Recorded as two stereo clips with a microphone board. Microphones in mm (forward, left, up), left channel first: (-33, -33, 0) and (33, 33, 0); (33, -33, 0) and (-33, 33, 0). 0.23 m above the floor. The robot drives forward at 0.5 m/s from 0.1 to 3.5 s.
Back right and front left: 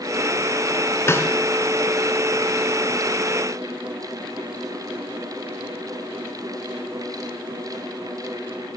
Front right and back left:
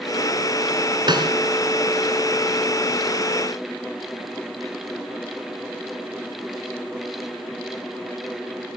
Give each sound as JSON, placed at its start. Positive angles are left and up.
{"t": 1.1, "sound": "a snare drum", "azimuth_deg": 160, "distance_m": 3.5}